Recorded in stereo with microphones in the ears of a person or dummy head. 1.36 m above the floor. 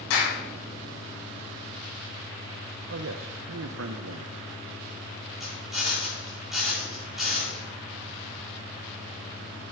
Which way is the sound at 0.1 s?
65° left (ahead or behind).